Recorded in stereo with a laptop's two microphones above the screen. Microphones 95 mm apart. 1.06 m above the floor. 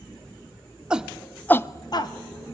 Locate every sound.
0.9 s a shout: 10° right (ahead or behind), 1.3 m; by 2.1 s 45° left (ahead or behind), 0.8 m